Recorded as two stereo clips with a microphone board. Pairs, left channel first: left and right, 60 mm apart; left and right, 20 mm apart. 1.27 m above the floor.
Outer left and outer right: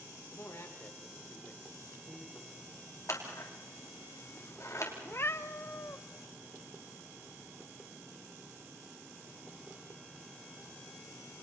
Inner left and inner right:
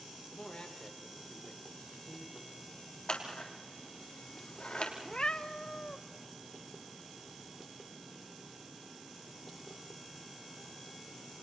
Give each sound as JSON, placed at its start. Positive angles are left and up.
{"t": 0.3, "sound": "a man speaking", "side_deg": 60, "distance_m": 3.5}
{"t": 3.1, "sound": "scissors", "side_deg": 60, "distance_m": 3.5}
{"t": 5.0, "sound": "a cat meowing", "side_deg": 45, "distance_m": 0.8}